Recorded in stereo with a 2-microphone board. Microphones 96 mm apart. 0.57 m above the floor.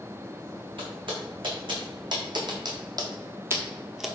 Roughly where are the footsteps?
Right.